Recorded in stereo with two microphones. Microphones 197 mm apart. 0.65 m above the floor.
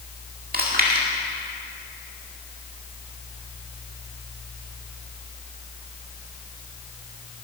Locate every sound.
0.5 s chewing: 45° right (ahead or behind), 1.9 m